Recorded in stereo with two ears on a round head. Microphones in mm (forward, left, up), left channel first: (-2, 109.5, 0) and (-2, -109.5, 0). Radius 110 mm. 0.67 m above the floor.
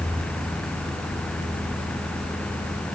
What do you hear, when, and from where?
Only background noise.